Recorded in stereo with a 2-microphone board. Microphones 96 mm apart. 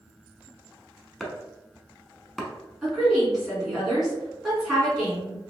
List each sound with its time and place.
1.2 s chopping: centre (ahead or behind), 0.6 m
2.8 s a woman speaking: 5° right (ahead or behind), 1.8 m